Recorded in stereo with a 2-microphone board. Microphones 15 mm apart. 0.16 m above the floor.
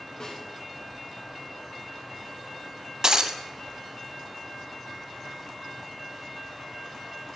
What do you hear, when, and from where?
0.2 s a snare drum: 60° left (ahead or behind), 4.5 m
3.0 s breaking glass: 50° right (ahead or behind), 0.8 m